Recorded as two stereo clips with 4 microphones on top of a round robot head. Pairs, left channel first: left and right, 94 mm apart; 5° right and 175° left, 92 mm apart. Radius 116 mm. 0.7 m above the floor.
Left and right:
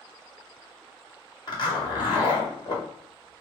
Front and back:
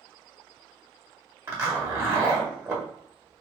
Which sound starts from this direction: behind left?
A zipper, at 1.5 s.